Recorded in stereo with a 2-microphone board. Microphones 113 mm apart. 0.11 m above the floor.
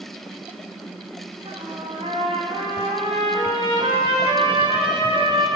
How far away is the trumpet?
About 5.5 m.